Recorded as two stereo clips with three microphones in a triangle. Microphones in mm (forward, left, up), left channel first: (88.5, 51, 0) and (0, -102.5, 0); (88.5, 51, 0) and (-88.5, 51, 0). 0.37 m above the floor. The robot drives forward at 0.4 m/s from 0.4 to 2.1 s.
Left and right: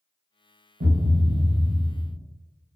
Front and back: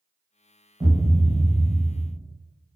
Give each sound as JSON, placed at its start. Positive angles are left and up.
{"t": 0.8, "sound": "a thud", "azimuth_deg": -115, "distance_m": 0.6}